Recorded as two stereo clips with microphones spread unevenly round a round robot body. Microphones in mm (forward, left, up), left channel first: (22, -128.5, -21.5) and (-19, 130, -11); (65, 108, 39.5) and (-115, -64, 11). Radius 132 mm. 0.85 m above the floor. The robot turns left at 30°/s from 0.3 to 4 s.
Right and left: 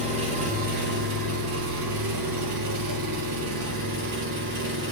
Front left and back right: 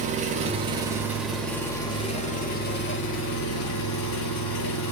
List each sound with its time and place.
0.0 s an engine running: 165° left, 3 m; by 4.9 s 55° left, 3 m